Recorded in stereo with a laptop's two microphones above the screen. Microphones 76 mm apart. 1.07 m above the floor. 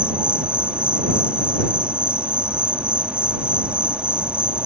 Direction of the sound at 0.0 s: 15° right (ahead or behind).